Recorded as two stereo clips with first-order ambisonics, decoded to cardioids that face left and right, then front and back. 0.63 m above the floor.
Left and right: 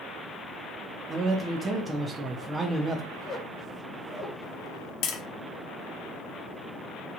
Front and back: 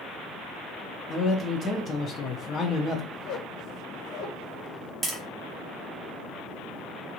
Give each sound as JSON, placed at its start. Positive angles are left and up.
{"t": 1.1, "sound": "a man speaking", "azimuth_deg": -30, "distance_m": 0.5}
{"t": 3.1, "sound": "a squeak", "azimuth_deg": 20, "distance_m": 1.0}
{"t": 5.0, "sound": "tapping", "azimuth_deg": 110, "distance_m": 0.7}